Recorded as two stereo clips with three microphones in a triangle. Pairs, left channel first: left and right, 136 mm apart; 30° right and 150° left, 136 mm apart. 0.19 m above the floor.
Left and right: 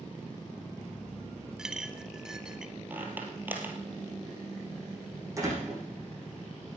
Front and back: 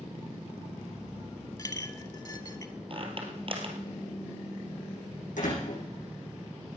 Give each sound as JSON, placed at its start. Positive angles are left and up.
{"t": 1.6, "sound": "a clink", "azimuth_deg": -10, "distance_m": 0.9}
{"t": 2.9, "sound": "a squeak", "azimuth_deg": -165, "distance_m": 2.5}
{"t": 5.4, "sound": "a door slam", "azimuth_deg": -25, "distance_m": 7.5}